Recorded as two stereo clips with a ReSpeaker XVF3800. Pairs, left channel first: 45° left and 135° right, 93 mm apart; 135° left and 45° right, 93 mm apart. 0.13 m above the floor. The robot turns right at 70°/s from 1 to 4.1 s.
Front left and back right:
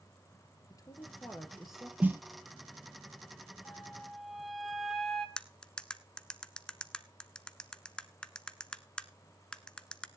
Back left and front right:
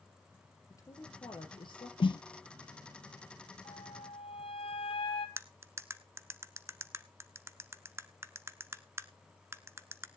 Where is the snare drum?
150° left, 0.5 m; by 2.2 s 165° left, 0.5 m.